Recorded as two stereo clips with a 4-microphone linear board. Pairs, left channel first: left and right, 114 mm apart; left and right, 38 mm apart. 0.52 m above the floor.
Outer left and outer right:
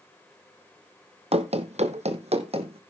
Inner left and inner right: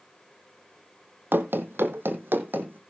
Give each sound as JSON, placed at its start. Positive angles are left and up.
{"t": 1.3, "sound": "running footsteps", "side_deg": -60, "distance_m": 1.2}